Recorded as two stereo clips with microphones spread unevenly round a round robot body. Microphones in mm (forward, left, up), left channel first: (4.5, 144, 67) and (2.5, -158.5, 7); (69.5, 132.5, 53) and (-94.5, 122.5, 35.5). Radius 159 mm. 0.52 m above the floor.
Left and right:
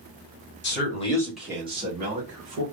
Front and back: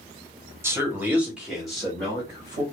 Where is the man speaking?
130° left, 1.2 m; by 2.6 s 80° right, 1.7 m.